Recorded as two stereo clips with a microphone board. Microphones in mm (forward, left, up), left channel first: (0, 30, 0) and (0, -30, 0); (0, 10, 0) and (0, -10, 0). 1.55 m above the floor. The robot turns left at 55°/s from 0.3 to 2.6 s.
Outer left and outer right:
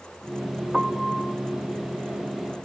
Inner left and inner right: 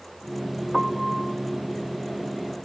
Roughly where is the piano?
Behind.